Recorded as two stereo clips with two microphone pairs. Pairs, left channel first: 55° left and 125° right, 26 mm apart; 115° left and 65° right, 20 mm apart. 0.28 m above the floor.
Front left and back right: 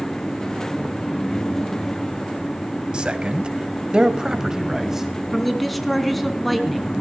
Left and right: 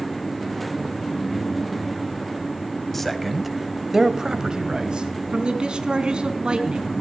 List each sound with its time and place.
2.9 s a man speaking: 165° right, 1.9 m; by 5.1 s 55° right, 2 m
5.3 s a man speaking: 35° right, 2.5 m